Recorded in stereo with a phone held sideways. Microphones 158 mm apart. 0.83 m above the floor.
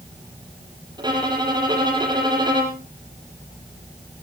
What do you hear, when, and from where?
1.0 s a violin: 25° right (ahead or behind), 4.5 m